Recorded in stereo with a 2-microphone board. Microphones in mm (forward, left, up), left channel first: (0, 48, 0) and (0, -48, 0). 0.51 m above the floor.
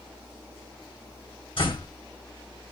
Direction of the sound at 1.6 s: 65° left (ahead or behind).